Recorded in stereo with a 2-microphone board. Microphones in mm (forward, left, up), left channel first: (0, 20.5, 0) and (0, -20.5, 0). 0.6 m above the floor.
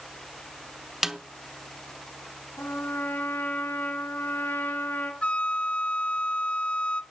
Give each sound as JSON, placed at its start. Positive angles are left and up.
{"t": 1.0, "sound": "a snare drum", "side_deg": -10, "distance_m": 0.8}
{"t": 2.6, "sound": "a trumpet", "side_deg": 60, "distance_m": 4.5}
{"t": 5.2, "sound": "a flute", "side_deg": 30, "distance_m": 0.6}